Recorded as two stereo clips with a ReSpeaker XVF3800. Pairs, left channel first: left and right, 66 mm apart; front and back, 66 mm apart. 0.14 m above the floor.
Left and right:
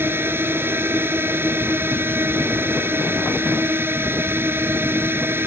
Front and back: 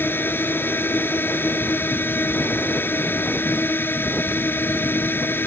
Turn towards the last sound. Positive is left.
turn(degrees=-50)